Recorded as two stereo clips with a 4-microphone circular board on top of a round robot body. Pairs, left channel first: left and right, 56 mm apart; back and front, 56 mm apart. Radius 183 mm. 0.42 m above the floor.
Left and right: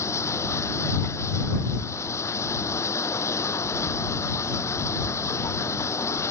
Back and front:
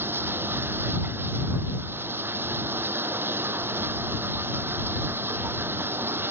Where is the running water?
50° left.